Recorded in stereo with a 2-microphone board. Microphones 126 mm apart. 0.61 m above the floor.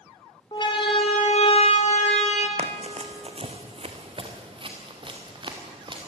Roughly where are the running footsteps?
Right.